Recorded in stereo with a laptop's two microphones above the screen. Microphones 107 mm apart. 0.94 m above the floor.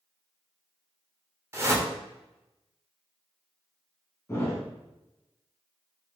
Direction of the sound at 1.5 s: 25° right (ahead or behind).